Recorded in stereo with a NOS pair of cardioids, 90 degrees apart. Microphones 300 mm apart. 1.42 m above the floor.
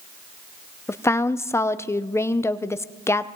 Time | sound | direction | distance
0.9 | a woman speaking | 10° left | 0.6 m